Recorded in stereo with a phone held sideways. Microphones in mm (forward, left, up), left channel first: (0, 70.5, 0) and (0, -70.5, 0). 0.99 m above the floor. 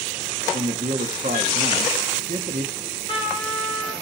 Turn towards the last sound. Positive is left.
turn(degrees=40)  # may be behind; listen again after turning